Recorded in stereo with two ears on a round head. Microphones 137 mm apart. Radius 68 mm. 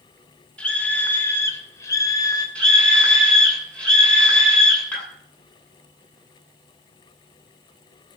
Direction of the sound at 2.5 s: 10° left (ahead or behind).